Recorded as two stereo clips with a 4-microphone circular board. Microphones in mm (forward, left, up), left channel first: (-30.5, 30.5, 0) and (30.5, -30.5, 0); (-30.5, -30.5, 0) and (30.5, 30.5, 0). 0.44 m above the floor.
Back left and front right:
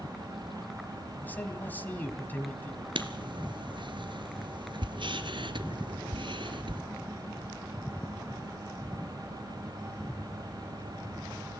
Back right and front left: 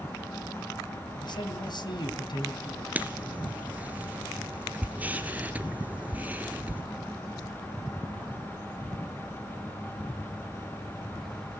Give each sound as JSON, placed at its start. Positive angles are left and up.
{"t": 1.2, "sound": "a man speaking", "azimuth_deg": -155, "distance_m": 3.0}
{"t": 3.0, "sound": "writing", "azimuth_deg": -25, "distance_m": 1.4}